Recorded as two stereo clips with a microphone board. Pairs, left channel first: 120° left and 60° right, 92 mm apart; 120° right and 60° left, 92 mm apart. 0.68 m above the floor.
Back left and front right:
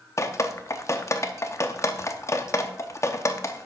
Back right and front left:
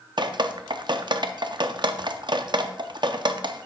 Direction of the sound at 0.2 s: 70° left.